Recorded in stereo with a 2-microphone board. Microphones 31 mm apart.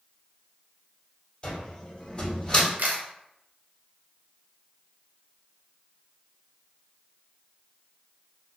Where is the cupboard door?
25° left (ahead or behind), 1.9 m.